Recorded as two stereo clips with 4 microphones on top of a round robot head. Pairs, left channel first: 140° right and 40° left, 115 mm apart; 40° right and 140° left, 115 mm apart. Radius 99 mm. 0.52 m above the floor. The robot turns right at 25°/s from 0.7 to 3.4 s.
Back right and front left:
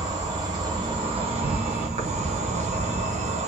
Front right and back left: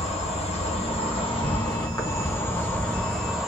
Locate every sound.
0.0 s an insect: 10° right, 0.9 m; by 3.5 s 55° left, 0.9 m